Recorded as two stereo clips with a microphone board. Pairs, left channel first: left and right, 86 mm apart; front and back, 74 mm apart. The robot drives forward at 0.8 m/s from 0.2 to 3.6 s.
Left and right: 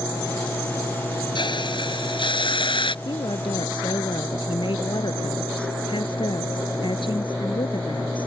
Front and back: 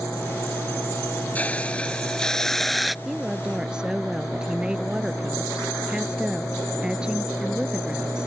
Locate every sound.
1.4 s a hiss: 70° left; by 3.0 s 90° left
3.0 s a woman speaking: 95° left; by 8.3 s 100° left